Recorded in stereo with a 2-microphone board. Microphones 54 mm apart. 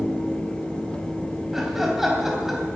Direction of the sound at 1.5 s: 10° right (ahead or behind).